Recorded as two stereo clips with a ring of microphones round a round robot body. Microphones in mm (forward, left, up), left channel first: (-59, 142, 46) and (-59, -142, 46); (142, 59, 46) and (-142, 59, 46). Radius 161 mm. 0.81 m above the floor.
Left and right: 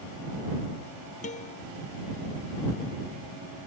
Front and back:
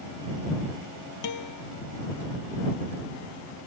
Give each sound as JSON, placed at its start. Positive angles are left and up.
{"t": 1.2, "sound": "a guitar", "azimuth_deg": 20}